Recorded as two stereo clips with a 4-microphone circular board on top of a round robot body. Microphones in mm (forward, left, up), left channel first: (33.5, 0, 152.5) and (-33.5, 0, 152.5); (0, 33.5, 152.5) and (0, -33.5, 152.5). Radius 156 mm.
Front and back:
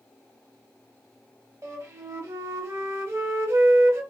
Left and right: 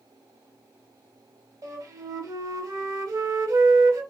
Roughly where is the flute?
Behind right.